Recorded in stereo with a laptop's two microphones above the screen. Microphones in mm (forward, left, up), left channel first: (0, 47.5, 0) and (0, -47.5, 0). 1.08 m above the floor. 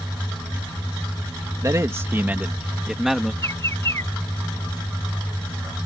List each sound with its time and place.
1.6 s a man speaking: 35° right (ahead or behind); by 3.3 s centre (ahead or behind)
3.4 s a bird: 30° left (ahead or behind)